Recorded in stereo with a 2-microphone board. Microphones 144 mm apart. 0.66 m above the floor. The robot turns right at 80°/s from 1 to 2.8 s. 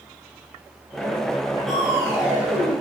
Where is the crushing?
175° left, 4.5 m; by 2.7 s 100° right, 4.5 m.